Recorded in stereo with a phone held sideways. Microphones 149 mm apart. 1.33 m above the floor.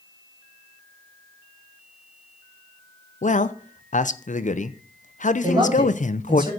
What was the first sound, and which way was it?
A man speaking, 60° left (ahead or behind).